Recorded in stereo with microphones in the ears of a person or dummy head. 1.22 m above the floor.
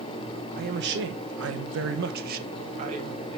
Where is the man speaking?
45° right (ahead or behind), 1.0 m; by 3.4 s 40° right (ahead or behind), 1.5 m.